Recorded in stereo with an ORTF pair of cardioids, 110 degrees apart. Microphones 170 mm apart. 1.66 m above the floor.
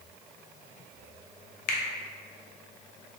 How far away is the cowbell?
I don't hear a cowbell.